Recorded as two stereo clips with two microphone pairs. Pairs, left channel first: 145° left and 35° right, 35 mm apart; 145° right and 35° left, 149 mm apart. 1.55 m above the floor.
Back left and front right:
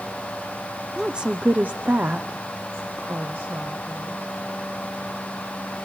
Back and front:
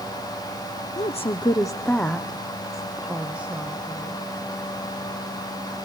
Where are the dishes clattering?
No dishes clattering in this recording.